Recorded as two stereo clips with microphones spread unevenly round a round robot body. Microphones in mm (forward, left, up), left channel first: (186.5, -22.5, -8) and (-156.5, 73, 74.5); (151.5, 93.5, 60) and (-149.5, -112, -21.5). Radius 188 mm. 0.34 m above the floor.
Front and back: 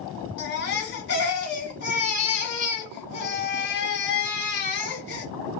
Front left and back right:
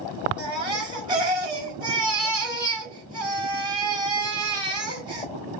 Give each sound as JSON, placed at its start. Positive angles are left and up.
{"t": 0.4, "sound": "a baby crying", "azimuth_deg": -70, "distance_m": 1.3}